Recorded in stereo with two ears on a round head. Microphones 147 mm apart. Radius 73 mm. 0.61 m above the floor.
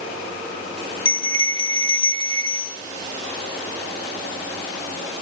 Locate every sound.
1.1 s a bell: 30° left (ahead or behind), 0.6 m